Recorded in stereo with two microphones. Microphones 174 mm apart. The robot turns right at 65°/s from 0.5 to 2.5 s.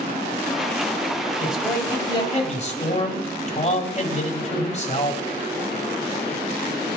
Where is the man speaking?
10° right, 2 m; by 5.2 s 60° left, 2 m.